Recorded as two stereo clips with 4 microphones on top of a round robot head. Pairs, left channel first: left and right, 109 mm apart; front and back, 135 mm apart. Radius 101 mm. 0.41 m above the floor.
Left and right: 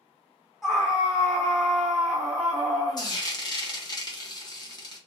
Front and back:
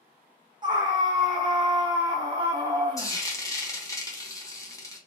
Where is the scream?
175° right, 1.1 m.